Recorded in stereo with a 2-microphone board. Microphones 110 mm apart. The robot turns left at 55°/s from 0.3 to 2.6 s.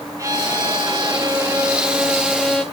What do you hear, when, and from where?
0.2 s a violin: 65° right, 1.8 m; by 2.6 s 170° left, 1.8 m